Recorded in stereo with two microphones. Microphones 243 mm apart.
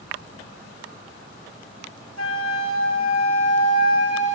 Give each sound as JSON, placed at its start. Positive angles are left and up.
{"t": 2.2, "sound": "a flute", "side_deg": 75, "distance_m": 0.9}